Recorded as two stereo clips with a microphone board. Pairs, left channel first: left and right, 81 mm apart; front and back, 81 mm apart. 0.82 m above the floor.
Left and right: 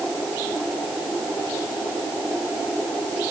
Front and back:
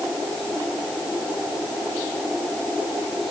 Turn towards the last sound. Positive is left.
No sound to turn to.